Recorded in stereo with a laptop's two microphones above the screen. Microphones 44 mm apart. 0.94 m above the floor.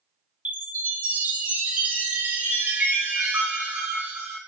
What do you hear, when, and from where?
0.5 s a chime: 35° right (ahead or behind), 1.1 m